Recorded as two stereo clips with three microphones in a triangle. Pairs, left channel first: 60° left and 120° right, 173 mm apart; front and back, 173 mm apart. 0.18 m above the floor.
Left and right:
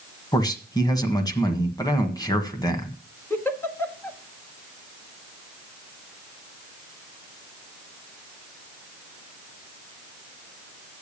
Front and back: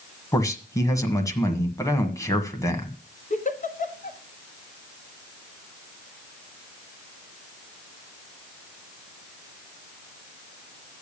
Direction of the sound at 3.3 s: 15° right.